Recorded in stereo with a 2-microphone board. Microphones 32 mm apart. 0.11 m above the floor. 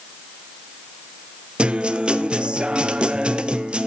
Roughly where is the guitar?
Right.